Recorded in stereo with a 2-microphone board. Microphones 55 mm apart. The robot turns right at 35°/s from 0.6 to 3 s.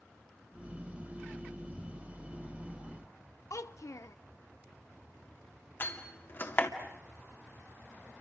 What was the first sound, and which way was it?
A child speaking, 70° left (ahead or behind).